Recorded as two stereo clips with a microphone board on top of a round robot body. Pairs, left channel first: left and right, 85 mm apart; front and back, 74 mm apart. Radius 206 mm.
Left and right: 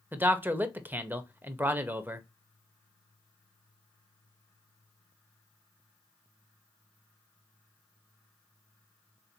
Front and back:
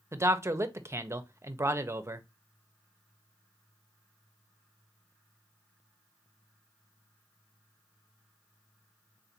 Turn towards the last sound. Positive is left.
turn(degrees=-145)